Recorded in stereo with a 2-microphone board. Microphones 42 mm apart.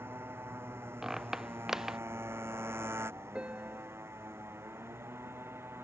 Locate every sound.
0.0 s a motorcycle: 65° right (ahead or behind); by 5.8 s 75° right (ahead or behind)
1.0 s a squeak: 10° right (ahead or behind)
3.4 s a piano: 25° right (ahead or behind)